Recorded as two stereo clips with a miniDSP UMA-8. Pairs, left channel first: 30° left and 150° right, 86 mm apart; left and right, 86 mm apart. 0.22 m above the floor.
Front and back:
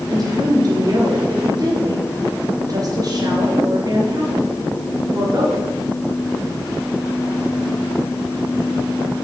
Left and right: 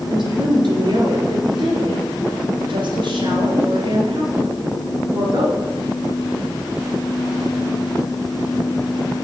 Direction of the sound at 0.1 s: 110° right.